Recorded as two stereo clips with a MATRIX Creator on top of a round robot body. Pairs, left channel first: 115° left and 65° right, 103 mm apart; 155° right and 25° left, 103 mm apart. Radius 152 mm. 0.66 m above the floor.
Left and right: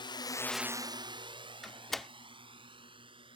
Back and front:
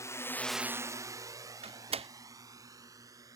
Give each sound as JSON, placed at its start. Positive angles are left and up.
{"t": 0.0, "sound": "a drone", "azimuth_deg": 145}
{"t": 1.6, "sound": "a door slam", "azimuth_deg": 25}